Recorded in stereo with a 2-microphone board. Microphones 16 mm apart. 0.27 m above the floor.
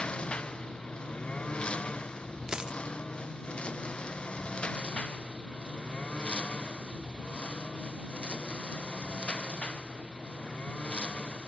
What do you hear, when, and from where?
0.0 s a lawn mower: 85° left
2.5 s a dropped coin: 45° right (ahead or behind)